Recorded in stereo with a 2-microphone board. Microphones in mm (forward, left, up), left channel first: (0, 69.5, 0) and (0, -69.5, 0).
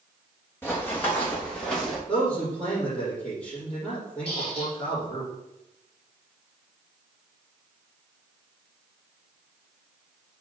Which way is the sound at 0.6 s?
15° left (ahead or behind).